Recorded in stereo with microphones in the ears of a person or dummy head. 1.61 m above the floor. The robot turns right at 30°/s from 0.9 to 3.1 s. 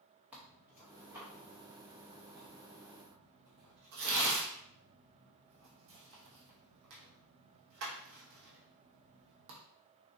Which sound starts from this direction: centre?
Tearing paper, at 0.3 s.